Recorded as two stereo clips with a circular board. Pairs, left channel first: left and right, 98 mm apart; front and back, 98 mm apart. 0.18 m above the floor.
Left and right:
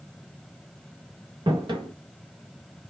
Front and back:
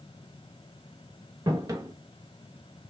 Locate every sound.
1.5 s footsteps: 130° right, 1.8 m; by 2.9 s 115° right, 1.1 m